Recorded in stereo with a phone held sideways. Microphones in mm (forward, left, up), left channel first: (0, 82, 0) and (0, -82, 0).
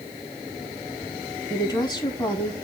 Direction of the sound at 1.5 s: 25° left (ahead or behind).